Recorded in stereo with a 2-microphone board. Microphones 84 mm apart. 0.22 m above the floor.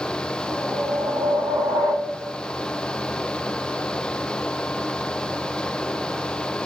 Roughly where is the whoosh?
Right.